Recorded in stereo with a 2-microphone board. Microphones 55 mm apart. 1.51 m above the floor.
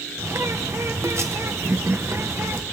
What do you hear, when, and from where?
0.2 s a bird: 55° right (ahead or behind), 1.0 m